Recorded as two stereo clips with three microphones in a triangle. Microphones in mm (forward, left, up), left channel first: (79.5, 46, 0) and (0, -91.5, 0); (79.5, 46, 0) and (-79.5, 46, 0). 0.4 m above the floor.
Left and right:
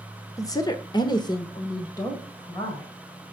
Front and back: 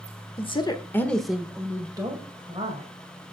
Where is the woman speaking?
5° left, 1.2 m; by 2.9 s 130° left, 2 m.